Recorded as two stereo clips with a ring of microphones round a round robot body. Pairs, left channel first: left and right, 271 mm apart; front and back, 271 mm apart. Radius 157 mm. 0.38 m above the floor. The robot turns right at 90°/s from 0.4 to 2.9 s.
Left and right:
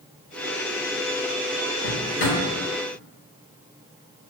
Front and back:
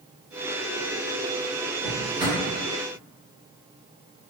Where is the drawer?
75° left, 0.8 m; by 2.4 s 125° left, 0.8 m.